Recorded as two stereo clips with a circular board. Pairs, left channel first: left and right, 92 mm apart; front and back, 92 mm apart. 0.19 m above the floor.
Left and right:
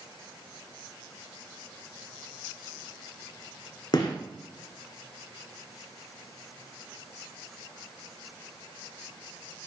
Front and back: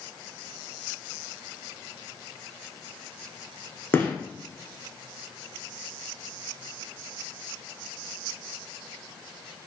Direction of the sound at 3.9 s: 65° left.